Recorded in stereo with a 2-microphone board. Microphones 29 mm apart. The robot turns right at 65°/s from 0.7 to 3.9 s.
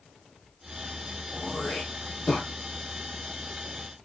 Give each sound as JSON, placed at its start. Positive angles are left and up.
{"t": 1.3, "sound": "throat clearing", "side_deg": -20, "distance_m": 3.0}